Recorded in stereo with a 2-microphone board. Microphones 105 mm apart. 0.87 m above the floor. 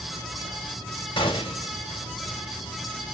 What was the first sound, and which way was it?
A gunshot, 50° left (ahead or behind).